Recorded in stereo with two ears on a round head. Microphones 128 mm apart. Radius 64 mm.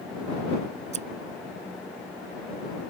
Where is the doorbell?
No doorbell in this recording.